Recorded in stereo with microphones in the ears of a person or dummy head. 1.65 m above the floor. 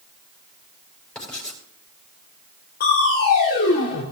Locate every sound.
1.1 s writing: 5° left (ahead or behind), 5 m
2.8 s crushing: 50° left (ahead or behind), 3 m